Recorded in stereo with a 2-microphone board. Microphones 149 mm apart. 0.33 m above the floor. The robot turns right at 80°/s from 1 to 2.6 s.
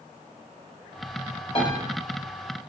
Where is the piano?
40° left (ahead or behind), 1.1 m; by 1.8 s 35° left (ahead or behind), 1.1 m.